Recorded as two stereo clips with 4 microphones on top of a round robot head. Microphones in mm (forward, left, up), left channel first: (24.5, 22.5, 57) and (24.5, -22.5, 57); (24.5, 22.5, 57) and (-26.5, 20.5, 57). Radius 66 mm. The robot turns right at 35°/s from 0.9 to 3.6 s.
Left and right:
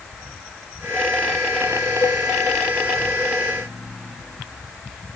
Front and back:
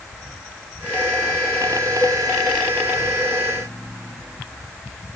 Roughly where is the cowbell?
Ahead left.